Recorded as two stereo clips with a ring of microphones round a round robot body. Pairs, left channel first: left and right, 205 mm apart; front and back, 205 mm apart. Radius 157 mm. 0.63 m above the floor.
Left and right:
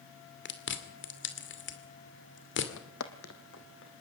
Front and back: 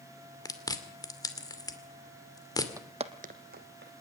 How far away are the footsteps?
About 1.0 m.